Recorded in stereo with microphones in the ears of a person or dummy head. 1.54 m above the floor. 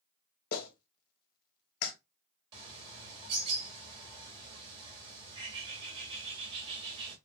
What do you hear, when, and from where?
0.5 s a clap: 55° left (ahead or behind), 1.2 m
2.5 s a bird: 25° right (ahead or behind), 1.5 m